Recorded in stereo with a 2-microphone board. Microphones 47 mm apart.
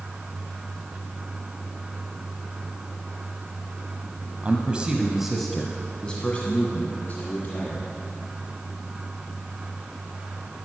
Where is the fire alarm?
I don't hear a fire alarm.